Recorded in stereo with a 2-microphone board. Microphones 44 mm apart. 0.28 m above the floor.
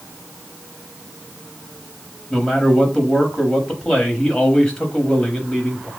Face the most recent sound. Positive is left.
turn(degrees=20)  # may be behind; listen again after turning